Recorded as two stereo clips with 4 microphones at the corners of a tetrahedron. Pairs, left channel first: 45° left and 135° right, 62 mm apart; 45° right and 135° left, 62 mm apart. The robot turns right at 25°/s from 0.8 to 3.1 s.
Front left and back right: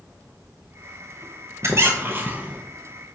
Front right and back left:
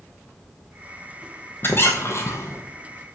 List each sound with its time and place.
1.6 s a squeak: 95° right, 0.7 m; by 2.6 s 70° right, 0.7 m